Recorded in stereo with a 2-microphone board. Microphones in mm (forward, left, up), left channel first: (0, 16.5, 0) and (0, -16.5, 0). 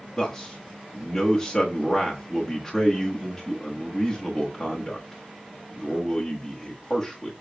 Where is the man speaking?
10° left (ahead or behind), 1.2 m.